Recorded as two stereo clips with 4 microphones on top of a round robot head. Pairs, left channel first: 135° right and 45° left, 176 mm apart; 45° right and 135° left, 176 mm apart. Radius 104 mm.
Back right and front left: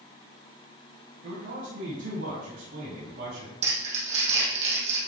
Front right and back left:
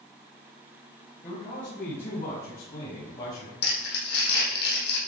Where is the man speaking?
Straight ahead, 3.5 m; by 3.5 s 5° left, 5 m.